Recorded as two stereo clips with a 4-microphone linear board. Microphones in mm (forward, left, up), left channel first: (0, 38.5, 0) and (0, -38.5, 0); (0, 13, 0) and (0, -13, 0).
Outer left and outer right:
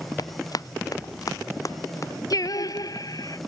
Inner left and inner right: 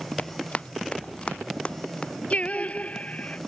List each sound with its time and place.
0.2 s running footsteps: 65° left (ahead or behind); by 2.1 s 45° left (ahead or behind)
2.3 s singing: 60° left (ahead or behind)